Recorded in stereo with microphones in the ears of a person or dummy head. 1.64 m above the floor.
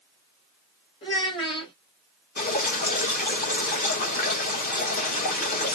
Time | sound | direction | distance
1.0 | a child speaking | 30° left (ahead or behind) | 1.5 m
2.4 | dripping | 45° left (ahead or behind) | 1.2 m